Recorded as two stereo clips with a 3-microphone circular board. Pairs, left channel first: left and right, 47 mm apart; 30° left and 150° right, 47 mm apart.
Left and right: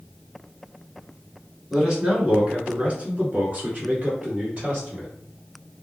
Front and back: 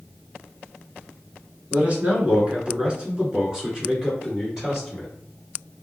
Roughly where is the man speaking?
Behind.